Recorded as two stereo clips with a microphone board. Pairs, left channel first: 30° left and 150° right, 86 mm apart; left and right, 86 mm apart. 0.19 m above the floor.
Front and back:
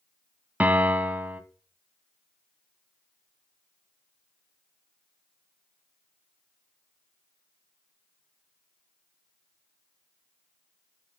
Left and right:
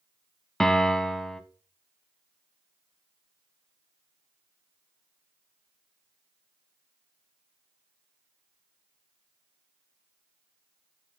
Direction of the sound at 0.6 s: 165° left.